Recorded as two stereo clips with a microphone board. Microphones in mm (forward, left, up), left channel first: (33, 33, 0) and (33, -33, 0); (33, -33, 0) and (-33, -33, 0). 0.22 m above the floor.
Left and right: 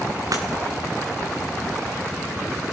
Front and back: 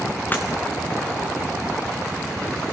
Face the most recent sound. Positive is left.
turn(degrees=-60)